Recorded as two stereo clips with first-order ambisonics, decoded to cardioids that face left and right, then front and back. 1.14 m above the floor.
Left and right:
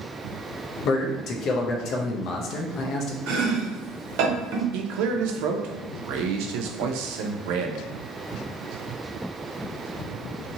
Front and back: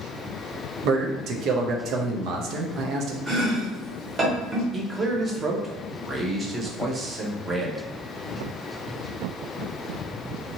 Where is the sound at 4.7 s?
105° right, 0.5 m.